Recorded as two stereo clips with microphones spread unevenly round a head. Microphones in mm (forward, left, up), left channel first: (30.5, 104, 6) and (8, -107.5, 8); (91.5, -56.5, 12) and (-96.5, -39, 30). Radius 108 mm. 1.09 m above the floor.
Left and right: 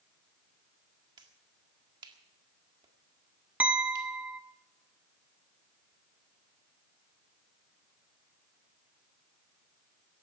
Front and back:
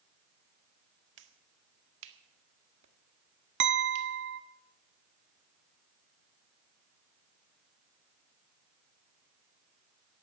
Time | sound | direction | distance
1.2 | a finger snap | 170° right | 1.7 m
3.6 | a clink | straight behind | 0.8 m